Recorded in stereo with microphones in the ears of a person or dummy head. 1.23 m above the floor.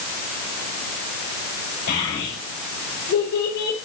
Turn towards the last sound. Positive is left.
turn(degrees=60)  # may be behind; listen again after turning